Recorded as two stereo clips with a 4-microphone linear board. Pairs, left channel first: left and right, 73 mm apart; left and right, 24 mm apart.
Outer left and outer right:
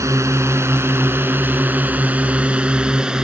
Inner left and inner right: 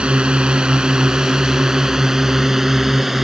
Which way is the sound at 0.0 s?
45° right (ahead or behind).